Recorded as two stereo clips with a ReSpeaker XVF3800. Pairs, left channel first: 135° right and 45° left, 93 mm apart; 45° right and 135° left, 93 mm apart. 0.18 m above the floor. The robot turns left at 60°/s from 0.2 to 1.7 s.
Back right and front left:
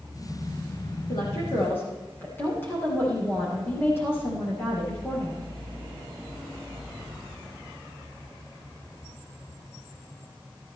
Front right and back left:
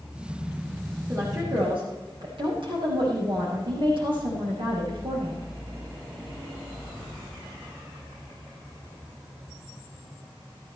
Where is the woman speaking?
165° right, 7.5 m; by 5.5 s 160° left, 7.5 m.